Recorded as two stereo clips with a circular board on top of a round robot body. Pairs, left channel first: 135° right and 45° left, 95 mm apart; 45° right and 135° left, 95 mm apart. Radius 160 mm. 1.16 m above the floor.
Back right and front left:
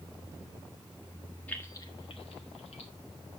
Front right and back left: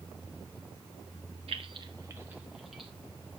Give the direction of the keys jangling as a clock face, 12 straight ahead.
7 o'clock.